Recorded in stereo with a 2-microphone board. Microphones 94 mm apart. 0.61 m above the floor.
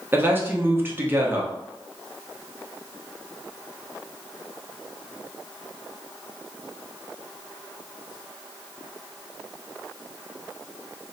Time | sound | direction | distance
0.1 | a man speaking | 25° right (ahead or behind) | 0.6 m